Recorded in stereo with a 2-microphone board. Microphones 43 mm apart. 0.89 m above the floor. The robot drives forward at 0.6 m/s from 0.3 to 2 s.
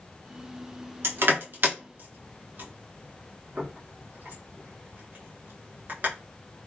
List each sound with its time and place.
1.0 s crushing: 65° right (ahead or behind), 0.9 m; by 6.1 s 45° right (ahead or behind), 1.1 m